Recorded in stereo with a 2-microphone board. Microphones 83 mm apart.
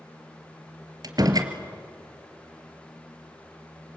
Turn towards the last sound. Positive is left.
turn(degrees=-50)  # may be behind; listen again after turning